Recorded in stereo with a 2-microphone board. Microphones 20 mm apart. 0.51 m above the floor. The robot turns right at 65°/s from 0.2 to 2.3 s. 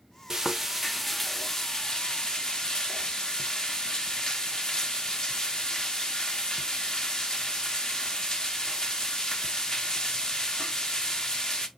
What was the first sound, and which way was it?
Frying, 40° right.